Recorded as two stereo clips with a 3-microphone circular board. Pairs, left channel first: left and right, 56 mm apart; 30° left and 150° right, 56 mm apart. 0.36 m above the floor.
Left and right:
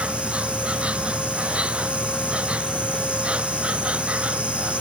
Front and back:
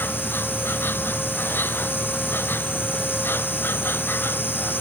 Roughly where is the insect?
Ahead.